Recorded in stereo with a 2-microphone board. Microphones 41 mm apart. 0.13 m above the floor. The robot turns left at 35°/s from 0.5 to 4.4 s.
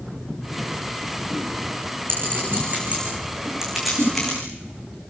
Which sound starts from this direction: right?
A clink, at 2.1 s.